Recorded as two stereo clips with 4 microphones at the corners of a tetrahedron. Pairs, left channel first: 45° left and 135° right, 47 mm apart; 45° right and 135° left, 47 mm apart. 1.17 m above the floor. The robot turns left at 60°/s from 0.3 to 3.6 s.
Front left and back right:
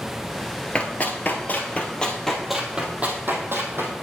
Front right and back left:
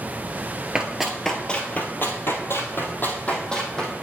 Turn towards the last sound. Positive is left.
turn(degrees=-120)